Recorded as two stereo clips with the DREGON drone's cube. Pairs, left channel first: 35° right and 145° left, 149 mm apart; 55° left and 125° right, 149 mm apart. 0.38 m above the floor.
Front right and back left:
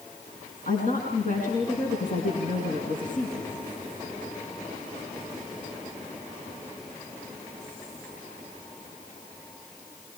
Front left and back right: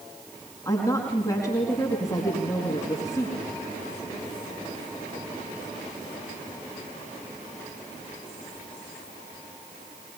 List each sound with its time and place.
0.7 s a woman speaking: 10° right, 4.5 m